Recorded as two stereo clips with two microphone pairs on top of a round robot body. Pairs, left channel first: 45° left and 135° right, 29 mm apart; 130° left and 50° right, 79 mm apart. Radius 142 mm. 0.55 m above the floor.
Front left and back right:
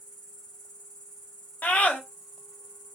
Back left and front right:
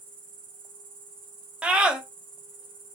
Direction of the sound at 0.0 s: 55° right.